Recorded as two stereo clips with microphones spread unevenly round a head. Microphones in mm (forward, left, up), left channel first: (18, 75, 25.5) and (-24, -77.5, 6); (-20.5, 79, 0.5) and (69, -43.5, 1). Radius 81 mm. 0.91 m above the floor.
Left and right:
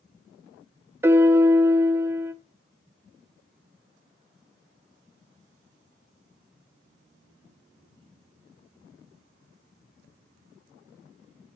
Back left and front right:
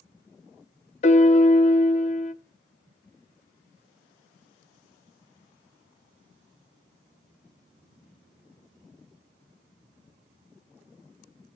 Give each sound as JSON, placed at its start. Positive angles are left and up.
{"t": 1.0, "sound": "a piano", "azimuth_deg": 175, "distance_m": 0.6}